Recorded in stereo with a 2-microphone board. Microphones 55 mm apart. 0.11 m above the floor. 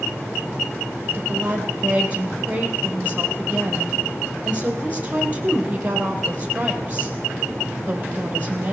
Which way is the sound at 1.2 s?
25° right (ahead or behind).